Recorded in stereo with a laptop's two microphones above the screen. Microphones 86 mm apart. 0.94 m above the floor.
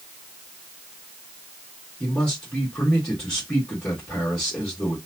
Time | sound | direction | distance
2.0 | a man speaking | 10° left (ahead or behind) | 1.6 m